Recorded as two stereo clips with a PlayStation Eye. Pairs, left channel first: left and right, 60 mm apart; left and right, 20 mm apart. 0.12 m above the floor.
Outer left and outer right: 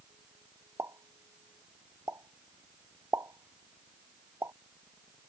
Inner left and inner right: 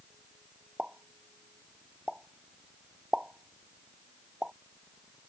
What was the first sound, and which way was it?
A pop, 55° right (ahead or behind).